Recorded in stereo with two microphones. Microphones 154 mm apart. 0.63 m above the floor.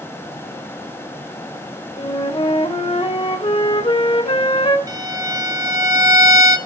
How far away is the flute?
About 1.3 m.